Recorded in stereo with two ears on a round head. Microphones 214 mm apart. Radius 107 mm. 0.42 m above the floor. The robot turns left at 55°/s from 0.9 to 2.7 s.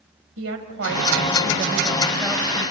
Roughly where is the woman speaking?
Right.